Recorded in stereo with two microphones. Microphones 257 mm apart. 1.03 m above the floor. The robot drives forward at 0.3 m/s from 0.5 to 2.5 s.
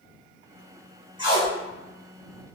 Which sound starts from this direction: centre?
Tape being pulled, at 1.2 s.